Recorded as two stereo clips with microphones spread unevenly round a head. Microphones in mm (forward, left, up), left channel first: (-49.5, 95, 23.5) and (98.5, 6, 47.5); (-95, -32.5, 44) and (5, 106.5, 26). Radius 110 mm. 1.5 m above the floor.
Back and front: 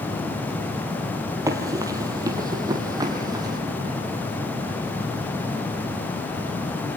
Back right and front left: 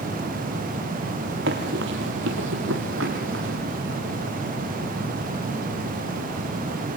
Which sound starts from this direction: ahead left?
Running footsteps, at 1.5 s.